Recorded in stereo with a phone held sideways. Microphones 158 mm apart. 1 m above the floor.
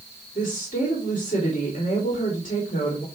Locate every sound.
0.3 s a woman speaking: 55° left (ahead or behind), 2.5 m